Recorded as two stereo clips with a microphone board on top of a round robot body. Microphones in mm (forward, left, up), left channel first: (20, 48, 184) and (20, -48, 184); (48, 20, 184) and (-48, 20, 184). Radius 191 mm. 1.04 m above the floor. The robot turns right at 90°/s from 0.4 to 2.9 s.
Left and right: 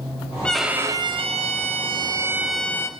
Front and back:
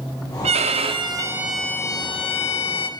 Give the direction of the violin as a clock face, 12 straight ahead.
6 o'clock.